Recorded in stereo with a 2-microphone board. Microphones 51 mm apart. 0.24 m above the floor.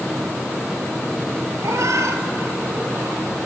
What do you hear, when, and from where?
1.6 s a cat meowing: 80° right, 1.7 m; by 3.2 s 55° right (ahead or behind), 2.0 m